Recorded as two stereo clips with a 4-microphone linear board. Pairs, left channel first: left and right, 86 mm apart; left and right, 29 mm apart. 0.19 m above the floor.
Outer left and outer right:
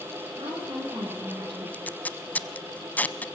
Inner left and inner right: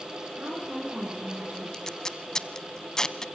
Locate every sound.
0.3 s a woman speaking: 60° right (ahead or behind), 8 m
1.7 s tape being pulled: 20° left (ahead or behind), 0.9 m